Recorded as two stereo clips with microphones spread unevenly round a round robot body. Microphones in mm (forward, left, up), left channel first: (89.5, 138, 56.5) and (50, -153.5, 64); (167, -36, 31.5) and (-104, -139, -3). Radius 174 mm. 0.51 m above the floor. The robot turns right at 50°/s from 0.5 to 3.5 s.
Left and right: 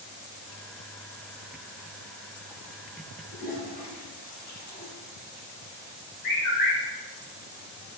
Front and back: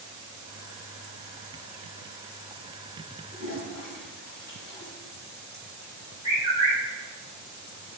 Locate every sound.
3.3 s a toilet flushing: 20° left, 1.1 m; by 4.9 s 30° left, 1.1 m
6.2 s a bird: 110° left, 1.4 m